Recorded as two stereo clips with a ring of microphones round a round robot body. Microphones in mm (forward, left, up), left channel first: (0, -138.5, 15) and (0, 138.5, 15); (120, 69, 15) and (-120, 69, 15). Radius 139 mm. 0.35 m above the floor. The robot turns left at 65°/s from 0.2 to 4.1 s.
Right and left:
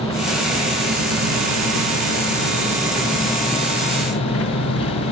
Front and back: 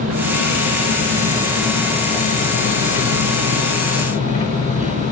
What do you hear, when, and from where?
0.0 s an engine running: 170° right, 1.9 m; by 5.1 s 60° right, 1.9 m